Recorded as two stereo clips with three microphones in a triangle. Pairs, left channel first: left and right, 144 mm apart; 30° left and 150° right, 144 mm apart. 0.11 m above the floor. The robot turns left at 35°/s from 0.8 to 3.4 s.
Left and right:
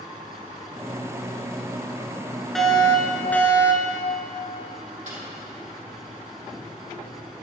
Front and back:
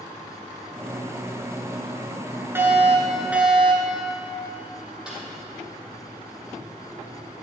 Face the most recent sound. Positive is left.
turn(degrees=-65)